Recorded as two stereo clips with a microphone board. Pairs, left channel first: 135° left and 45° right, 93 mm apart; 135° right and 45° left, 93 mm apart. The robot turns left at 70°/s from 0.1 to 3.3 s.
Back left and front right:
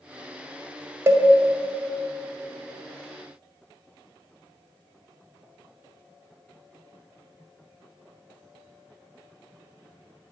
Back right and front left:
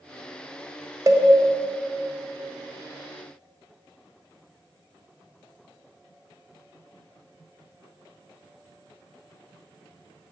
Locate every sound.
1.1 s a cowbell: 10° left, 0.5 m; by 1.3 s 5° right, 0.5 m